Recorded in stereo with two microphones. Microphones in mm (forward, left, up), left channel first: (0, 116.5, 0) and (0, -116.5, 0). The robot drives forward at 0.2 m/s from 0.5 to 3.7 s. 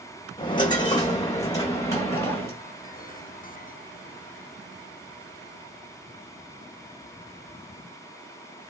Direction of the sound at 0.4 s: 20° left (ahead or behind).